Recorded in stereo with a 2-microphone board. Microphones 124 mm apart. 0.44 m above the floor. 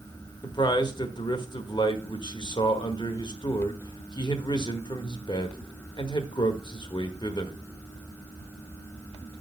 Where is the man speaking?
35° left (ahead or behind), 1.0 m.